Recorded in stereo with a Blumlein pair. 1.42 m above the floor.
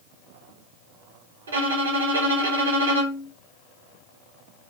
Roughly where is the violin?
Right.